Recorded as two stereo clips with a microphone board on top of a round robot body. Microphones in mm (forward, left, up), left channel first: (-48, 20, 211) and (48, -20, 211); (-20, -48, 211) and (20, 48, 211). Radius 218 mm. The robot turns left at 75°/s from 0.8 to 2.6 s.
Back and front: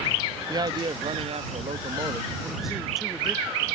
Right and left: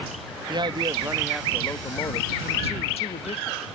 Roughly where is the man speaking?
Ahead left.